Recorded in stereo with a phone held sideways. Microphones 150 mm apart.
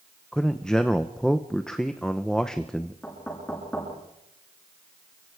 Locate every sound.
0.3 s a man speaking: 5° left (ahead or behind), 0.9 m
3.0 s knocking: 10° left (ahead or behind), 9.5 m